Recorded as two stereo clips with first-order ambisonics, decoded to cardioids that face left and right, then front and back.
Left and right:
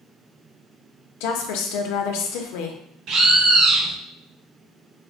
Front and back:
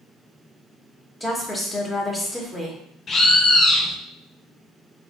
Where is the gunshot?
No gunshot in this recording.